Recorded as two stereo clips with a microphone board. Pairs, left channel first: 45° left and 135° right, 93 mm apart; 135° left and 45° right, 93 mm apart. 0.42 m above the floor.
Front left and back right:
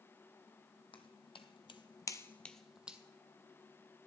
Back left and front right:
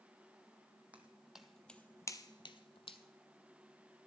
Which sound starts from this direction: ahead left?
Footsteps, at 0.9 s.